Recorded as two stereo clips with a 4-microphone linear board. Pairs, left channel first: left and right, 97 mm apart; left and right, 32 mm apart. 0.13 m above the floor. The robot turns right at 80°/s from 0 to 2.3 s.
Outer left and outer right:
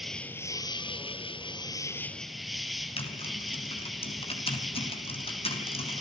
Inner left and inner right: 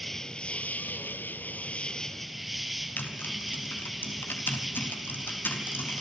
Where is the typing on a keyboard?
75° left (ahead or behind), 3 m.